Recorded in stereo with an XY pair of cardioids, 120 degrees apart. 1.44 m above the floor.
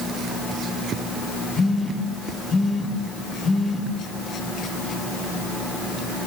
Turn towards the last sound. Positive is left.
turn(degrees=25)